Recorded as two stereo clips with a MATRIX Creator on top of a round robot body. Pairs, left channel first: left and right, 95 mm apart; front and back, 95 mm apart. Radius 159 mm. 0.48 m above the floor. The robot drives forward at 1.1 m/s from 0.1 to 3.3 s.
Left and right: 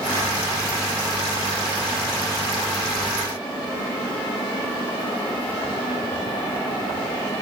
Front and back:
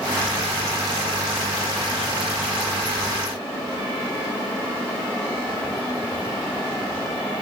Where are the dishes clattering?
No dishes clattering in this recording.